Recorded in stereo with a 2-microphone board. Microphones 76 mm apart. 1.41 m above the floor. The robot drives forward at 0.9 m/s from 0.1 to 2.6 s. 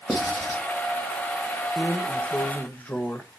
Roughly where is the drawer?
Left.